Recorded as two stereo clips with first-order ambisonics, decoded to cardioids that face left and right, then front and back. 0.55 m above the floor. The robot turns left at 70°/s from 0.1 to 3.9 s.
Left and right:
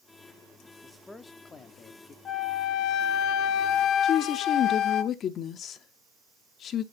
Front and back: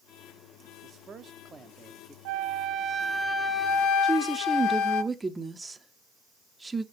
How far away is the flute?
About 0.8 m.